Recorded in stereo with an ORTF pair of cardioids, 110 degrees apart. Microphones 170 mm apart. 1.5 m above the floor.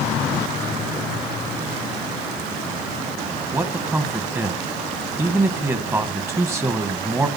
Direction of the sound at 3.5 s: 15° right.